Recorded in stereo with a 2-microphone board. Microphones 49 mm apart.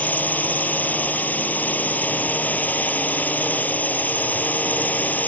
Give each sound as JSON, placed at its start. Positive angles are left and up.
{"t": 0.0, "sound": "a drone", "side_deg": 40}